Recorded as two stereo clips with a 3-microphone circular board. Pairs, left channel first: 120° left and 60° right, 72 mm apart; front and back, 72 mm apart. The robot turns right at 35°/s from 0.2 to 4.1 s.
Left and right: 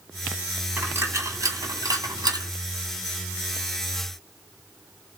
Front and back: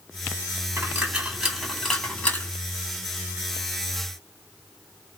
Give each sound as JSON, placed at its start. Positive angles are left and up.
{"t": 0.8, "sound": "a dropped coin", "azimuth_deg": -120, "distance_m": 1.6}